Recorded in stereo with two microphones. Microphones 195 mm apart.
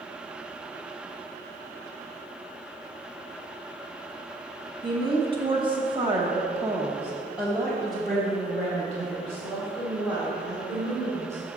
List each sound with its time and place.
4.8 s a woman speaking: 25° right (ahead or behind), 1.1 m; by 11.4 s 10° left (ahead or behind), 3 m